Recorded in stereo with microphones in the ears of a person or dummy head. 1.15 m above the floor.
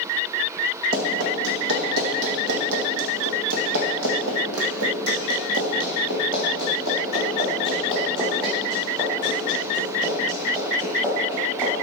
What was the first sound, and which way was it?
Running footsteps, 55° right (ahead or behind).